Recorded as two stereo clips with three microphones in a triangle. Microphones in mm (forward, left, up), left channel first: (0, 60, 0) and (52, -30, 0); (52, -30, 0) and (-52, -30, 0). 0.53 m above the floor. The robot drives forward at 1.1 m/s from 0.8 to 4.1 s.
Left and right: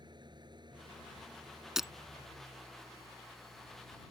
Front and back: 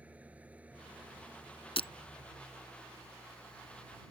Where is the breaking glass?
25° left; by 1.9 s 30° left.